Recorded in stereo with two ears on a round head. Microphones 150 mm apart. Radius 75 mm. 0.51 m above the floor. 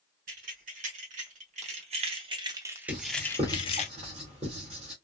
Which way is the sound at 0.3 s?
50° right (ahead or behind).